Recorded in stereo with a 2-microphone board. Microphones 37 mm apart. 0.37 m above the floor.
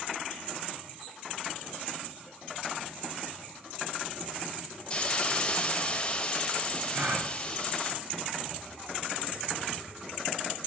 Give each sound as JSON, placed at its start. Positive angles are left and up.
{"t": 4.9, "sound": "a hiss", "side_deg": 25, "distance_m": 0.8}
{"t": 6.9, "sound": "a gasp", "side_deg": -50, "distance_m": 1.1}